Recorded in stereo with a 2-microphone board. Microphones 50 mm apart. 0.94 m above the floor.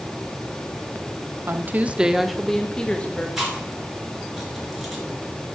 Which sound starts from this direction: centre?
Chewing, at 3.4 s.